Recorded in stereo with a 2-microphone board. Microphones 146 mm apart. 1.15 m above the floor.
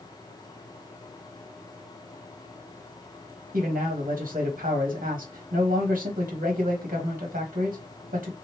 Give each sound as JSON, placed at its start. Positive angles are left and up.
{"t": 3.5, "sound": "a man speaking", "side_deg": -65, "distance_m": 1.2}